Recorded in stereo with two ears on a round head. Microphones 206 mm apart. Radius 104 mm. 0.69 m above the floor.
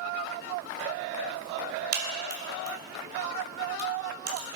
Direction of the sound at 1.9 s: 45° right (ahead or behind).